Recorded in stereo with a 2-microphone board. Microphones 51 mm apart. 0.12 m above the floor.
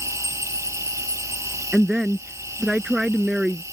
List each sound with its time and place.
0.0 s an insect: 75° right (ahead or behind)
1.7 s a woman speaking: 15° right (ahead or behind)